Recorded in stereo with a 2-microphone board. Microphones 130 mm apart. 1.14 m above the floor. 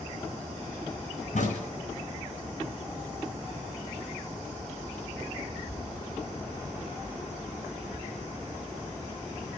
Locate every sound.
1.3 s a crack: 75° left (ahead or behind), 6.5 m